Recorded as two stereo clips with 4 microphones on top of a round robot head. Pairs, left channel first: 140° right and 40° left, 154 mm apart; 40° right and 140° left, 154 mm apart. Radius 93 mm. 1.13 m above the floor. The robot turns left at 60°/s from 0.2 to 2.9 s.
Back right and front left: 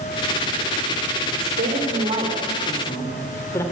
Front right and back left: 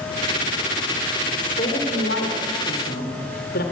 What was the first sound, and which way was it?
A woman speaking, 25° left.